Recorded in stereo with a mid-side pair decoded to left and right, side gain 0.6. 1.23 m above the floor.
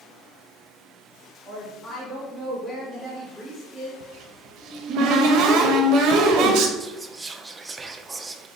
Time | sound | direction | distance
1.4 | a woman speaking | 30° left | 2 m
4.0 | a cupboard door | 65° right | 0.8 m
6.8 | whispering | 15° right | 0.6 m